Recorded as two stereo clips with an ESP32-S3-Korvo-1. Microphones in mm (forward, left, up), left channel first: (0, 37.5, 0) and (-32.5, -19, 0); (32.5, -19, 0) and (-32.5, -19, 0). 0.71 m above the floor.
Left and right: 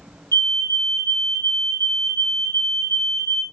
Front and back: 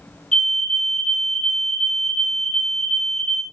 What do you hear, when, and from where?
0.3 s a fire alarm: 80° left, 2.5 m